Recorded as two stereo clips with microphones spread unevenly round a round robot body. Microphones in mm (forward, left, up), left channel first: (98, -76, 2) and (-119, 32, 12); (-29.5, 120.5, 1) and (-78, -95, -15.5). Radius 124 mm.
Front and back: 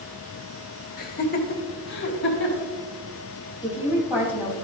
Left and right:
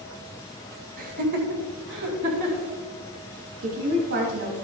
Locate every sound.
1.0 s laughter: 65° right, 1.7 m
3.6 s a woman speaking: 125° right, 4 m